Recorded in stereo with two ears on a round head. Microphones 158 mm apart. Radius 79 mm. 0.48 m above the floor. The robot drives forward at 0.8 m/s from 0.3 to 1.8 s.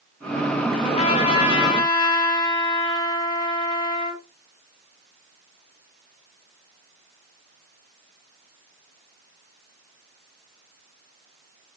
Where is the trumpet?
35° left (ahead or behind), 1.8 m; by 4.2 s 30° left (ahead or behind), 2.5 m.